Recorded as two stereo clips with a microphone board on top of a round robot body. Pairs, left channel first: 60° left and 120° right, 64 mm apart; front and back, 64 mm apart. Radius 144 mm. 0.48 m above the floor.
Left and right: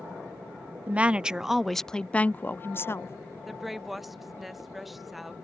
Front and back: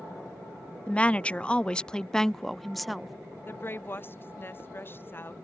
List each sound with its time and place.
0.9 s a woman speaking: 65° right; by 3.1 s 95° left
3.5 s a woman speaking: 35° right